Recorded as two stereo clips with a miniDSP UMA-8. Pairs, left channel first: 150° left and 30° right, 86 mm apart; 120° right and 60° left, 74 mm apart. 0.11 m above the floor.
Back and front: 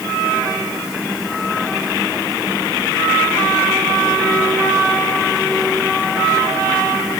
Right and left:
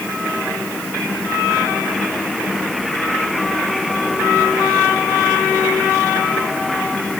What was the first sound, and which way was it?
Only background noise.